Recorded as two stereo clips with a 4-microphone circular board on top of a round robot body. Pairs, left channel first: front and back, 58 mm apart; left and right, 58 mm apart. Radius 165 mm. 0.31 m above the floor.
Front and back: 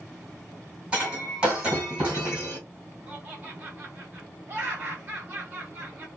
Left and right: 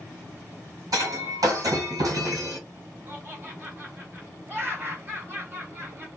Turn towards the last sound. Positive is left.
turn(degrees=-130)